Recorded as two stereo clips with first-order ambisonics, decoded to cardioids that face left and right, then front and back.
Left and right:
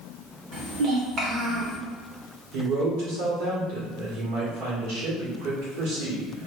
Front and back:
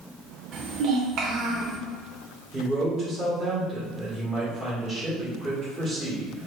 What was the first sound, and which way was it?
A child speaking, 140° right.